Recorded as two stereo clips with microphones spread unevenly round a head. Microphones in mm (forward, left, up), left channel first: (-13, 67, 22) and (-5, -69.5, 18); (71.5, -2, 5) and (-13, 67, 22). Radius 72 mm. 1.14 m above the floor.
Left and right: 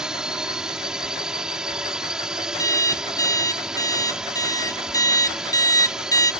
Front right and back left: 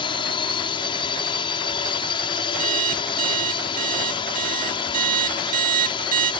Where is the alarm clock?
160° left.